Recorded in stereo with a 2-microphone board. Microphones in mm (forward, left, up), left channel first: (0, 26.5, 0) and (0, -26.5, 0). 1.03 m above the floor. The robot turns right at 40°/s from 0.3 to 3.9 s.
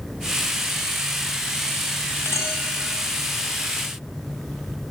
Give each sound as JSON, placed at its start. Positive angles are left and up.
{"t": 2.2, "sound": "a clink", "side_deg": 65, "distance_m": 3.0}